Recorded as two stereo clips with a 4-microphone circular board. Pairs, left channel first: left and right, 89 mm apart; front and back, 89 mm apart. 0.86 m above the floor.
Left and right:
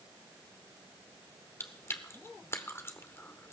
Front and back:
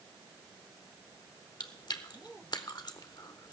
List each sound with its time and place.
1.6 s chewing: 30° left, 0.9 m